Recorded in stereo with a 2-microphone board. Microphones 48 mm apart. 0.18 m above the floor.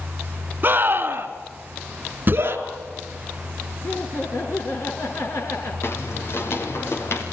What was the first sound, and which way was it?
A scream, 40° right (ahead or behind).